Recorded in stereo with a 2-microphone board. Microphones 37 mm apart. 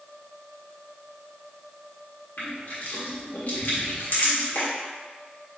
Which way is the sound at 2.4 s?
60° left (ahead or behind).